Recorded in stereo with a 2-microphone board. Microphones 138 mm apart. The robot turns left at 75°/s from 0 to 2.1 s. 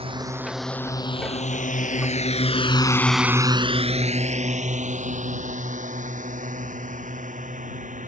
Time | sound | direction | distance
0.0 | a drone | 45° right (ahead or behind) | ?